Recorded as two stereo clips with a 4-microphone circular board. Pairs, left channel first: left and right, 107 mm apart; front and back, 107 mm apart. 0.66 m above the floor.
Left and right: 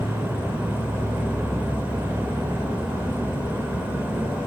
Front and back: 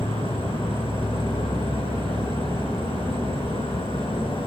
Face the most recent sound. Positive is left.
turn(degrees=-15)